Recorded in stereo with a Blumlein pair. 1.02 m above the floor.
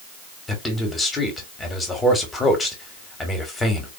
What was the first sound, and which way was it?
A man speaking, 10° left.